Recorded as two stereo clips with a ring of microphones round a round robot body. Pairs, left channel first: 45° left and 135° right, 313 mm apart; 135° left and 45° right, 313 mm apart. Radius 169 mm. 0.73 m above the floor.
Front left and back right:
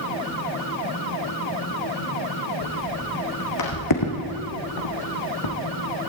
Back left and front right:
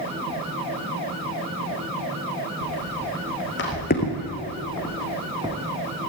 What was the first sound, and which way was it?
Footsteps, 95° left.